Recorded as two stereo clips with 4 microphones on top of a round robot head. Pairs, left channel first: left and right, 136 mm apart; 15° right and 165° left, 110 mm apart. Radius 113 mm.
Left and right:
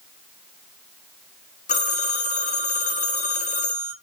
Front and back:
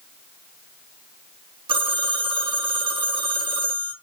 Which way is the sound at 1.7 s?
125° left.